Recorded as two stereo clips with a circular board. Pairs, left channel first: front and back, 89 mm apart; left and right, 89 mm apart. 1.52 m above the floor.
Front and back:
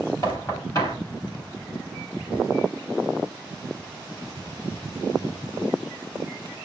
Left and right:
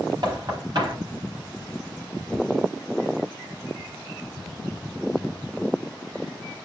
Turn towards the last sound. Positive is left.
turn(degrees=-50)